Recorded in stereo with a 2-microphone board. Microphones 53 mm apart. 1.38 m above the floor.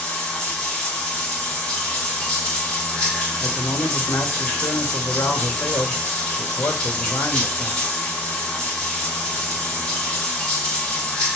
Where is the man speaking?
75° left (ahead or behind), 1.7 m.